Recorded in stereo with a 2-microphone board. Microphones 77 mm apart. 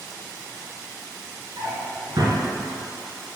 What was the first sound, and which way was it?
A drawer, 50° right (ahead or behind).